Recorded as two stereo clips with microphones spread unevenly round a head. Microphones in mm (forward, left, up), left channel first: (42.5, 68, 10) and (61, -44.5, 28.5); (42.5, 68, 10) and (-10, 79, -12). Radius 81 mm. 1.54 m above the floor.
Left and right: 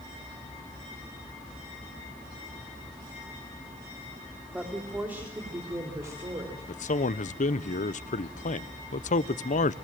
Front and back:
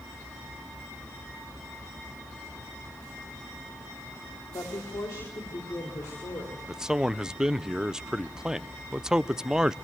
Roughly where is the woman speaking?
Ahead.